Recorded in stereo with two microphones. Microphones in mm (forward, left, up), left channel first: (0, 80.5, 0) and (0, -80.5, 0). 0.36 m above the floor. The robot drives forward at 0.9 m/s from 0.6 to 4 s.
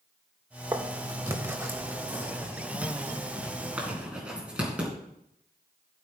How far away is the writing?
About 1.1 m.